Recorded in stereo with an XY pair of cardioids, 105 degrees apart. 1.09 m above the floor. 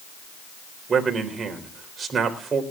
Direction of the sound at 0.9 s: 40° right.